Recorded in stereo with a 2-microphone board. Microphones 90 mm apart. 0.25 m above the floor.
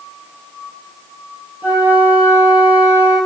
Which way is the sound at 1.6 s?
15° right (ahead or behind).